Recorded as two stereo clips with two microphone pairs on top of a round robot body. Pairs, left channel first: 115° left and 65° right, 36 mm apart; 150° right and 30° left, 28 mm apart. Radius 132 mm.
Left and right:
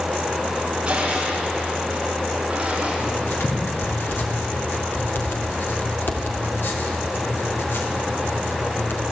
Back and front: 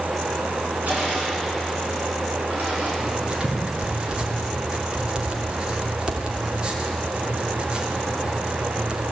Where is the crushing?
Straight ahead, 9.5 m.